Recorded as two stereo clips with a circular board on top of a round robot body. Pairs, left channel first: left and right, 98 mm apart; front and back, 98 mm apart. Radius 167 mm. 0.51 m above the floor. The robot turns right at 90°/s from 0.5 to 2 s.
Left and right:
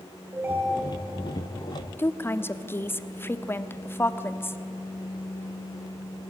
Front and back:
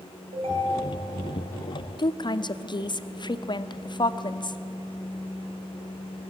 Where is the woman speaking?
25° left, 1.2 m.